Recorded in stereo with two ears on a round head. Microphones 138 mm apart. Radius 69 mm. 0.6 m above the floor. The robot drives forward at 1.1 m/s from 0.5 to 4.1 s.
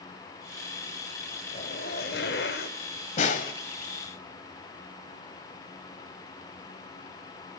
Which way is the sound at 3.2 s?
45° left (ahead or behind).